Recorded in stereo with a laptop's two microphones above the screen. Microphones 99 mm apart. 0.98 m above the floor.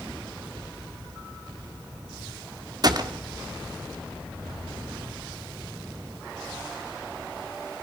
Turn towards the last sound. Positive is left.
turn(degrees=-45)  # may be behind; listen again after turning